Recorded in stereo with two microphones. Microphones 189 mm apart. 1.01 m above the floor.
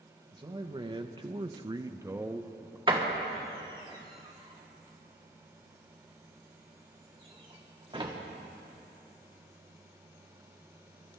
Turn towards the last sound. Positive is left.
turn(degrees=-25)  # may be behind; listen again after turning